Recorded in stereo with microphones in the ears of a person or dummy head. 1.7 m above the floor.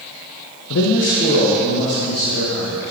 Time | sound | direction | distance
0.7 | a man speaking | 75° left (ahead or behind) | 0.5 m